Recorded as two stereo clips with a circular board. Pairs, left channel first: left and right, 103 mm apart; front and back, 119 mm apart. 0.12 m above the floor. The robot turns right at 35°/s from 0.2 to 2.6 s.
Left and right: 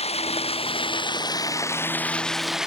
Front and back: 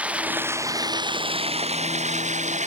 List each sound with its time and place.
0.0 s running water: 100° left; by 2.7 s 175° right